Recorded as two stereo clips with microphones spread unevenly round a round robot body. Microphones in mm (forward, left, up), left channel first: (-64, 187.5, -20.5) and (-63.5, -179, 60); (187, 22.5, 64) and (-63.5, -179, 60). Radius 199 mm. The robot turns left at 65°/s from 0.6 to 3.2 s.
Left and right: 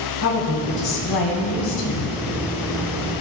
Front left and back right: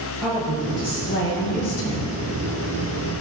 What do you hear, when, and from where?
0.2 s a woman speaking: 135° left, 1.5 m; by 2.2 s 35° left, 1.5 m